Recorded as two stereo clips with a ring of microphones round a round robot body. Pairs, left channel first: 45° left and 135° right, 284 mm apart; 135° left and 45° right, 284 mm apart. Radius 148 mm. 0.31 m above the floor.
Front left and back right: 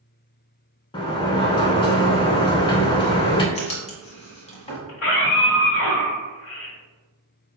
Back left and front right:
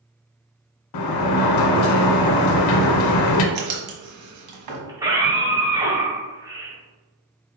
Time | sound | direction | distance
0.9 | a sliding door | 120° left | 0.6 m
3.5 | writing | 25° right | 1.3 m
4.9 | a scream | 30° left | 1.4 m